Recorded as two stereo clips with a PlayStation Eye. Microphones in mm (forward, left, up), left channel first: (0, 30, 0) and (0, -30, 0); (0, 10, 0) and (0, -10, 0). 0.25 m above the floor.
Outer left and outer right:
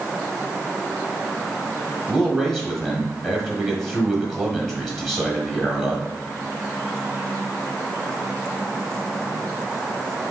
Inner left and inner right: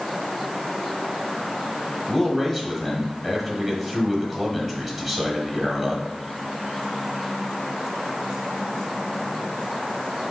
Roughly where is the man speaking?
Centre.